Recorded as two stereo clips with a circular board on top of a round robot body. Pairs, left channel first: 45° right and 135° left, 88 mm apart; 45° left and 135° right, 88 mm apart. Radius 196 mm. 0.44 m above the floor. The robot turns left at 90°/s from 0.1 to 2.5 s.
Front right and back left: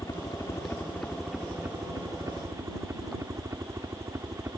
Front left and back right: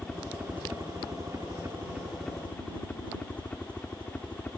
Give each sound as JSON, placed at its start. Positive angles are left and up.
{"t": 0.0, "sound": "a helicopter", "azimuth_deg": -35}